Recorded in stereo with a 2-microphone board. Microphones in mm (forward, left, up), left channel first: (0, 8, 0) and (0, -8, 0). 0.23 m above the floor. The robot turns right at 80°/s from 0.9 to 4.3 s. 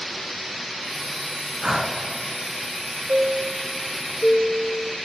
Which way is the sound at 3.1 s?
110° right.